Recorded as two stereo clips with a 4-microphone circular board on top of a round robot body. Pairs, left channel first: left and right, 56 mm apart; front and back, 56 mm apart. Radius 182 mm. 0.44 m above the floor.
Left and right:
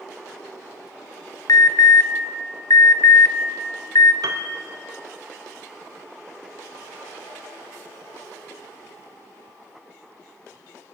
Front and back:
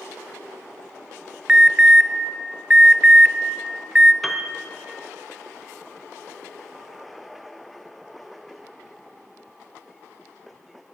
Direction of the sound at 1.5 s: 105° left.